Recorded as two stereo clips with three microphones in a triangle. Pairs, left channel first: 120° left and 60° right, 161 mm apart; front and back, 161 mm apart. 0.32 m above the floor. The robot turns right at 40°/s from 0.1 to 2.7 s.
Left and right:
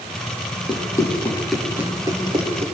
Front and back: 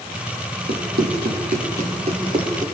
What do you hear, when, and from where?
0.7 s running footsteps: straight behind, 8.5 m; by 2.7 s 110° right, 7 m